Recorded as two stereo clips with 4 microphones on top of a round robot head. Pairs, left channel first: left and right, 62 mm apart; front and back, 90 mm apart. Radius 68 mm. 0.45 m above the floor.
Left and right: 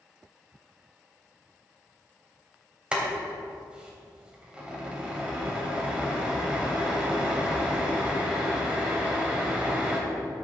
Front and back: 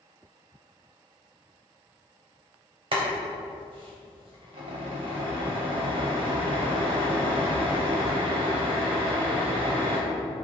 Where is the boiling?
160° right, 3 m.